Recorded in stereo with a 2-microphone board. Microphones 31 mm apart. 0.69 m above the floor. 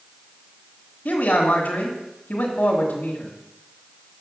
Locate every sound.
1.1 s a man speaking: 60° left (ahead or behind), 1.8 m